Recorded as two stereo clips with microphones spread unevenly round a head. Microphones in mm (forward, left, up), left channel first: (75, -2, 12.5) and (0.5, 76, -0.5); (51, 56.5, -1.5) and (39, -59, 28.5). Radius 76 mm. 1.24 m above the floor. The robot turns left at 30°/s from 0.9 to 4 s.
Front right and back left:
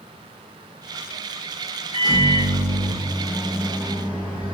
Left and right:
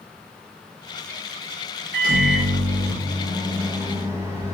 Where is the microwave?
105° right, 1.2 m; by 4.5 s 170° right, 1.2 m.